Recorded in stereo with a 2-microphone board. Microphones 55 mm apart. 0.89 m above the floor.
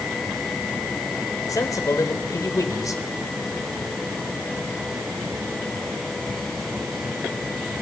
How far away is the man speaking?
About 3 m.